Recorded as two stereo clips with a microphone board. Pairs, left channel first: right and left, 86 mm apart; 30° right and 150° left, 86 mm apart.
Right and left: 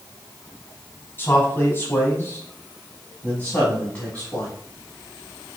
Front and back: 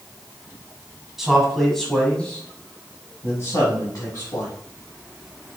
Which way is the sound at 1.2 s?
130° right.